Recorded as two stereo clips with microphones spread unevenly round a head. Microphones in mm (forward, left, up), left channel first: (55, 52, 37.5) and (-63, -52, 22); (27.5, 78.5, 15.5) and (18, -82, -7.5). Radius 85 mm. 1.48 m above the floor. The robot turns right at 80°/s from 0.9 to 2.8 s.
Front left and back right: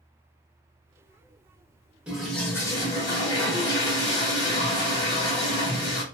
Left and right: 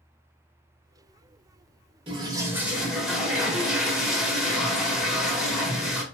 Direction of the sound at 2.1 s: 50° right.